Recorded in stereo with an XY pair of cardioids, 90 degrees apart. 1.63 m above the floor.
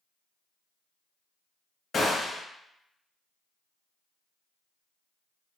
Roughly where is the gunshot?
Ahead left.